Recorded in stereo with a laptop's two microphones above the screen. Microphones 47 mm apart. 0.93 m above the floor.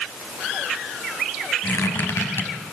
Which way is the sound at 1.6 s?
80° left.